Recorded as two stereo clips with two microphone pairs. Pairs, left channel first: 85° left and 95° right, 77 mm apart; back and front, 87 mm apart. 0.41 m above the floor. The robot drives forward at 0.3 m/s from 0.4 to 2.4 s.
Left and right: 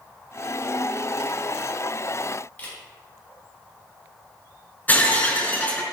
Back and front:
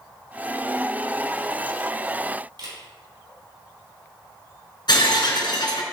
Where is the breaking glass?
150° left, 1.7 m.